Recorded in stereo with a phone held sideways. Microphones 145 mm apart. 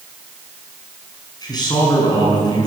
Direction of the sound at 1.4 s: 30° left (ahead or behind).